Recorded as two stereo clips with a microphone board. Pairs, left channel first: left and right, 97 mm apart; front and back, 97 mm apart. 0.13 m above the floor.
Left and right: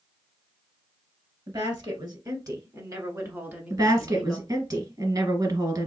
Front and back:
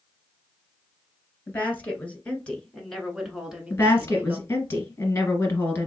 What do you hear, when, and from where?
1.5 s a woman speaking: 65° right, 1.6 m; by 4.5 s straight behind, 1.1 m
3.7 s a woman speaking: 60° right, 1.7 m